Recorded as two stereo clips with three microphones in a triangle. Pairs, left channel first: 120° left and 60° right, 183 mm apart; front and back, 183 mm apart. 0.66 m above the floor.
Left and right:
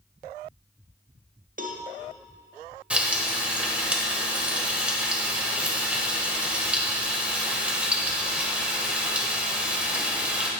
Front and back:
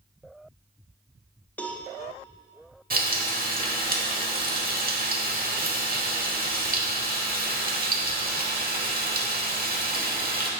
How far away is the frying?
About 1.2 m.